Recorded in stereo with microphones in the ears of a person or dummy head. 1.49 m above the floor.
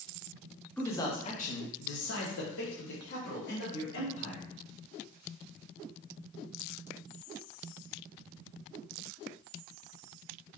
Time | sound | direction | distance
0.8 | a man speaking | 5° left (ahead or behind) | 0.8 m